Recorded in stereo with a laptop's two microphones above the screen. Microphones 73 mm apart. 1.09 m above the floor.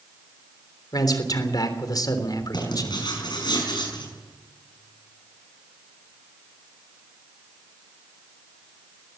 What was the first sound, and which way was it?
A man speaking, 60° left (ahead or behind).